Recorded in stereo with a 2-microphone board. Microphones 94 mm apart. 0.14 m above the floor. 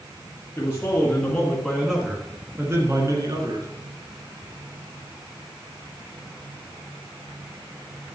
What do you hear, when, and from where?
0.6 s a man speaking: 30° left (ahead or behind), 2 m; by 3.7 s 50° right (ahead or behind), 2.5 m